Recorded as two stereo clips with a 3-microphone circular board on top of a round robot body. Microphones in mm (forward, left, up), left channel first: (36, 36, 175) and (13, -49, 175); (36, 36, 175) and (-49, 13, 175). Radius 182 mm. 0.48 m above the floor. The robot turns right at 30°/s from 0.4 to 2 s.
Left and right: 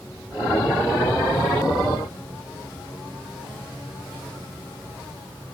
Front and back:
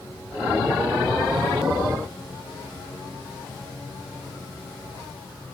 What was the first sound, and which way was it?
Only background noise.